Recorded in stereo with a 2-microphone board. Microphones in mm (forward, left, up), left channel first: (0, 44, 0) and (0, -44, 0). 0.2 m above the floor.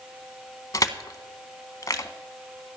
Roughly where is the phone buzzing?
I don't hear a phone buzzing.